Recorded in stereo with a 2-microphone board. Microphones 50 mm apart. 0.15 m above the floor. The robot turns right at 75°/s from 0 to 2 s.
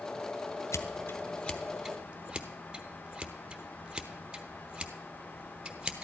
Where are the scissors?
75° left (ahead or behind), 0.9 m; by 6.0 s 20° right (ahead or behind), 0.9 m.